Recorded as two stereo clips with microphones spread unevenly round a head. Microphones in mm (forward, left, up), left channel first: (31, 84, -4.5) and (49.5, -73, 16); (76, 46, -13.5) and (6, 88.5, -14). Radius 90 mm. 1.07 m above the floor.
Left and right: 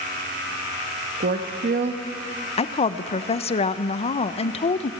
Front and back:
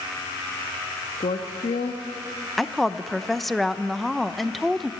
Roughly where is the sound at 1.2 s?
Ahead right.